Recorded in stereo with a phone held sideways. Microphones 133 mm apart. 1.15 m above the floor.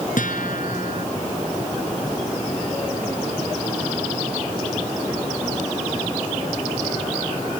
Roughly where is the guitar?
Left.